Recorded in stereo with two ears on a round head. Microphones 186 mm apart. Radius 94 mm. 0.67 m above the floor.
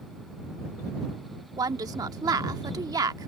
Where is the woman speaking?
20° right (ahead or behind).